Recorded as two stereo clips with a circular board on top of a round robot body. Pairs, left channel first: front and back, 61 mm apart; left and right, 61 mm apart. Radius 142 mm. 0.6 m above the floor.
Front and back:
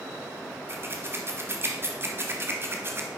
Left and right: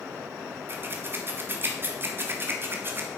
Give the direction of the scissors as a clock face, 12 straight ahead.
5 o'clock.